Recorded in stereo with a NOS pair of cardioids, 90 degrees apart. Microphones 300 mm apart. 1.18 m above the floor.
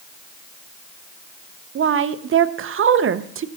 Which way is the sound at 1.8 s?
45° right.